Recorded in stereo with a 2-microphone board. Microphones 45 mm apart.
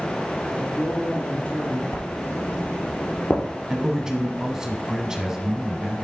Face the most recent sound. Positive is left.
turn(degrees=-10)  # may be behind; listen again after turning